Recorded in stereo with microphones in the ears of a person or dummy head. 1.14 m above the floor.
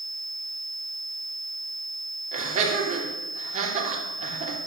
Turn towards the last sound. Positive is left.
turn(degrees=-40)  # may be behind; listen again after turning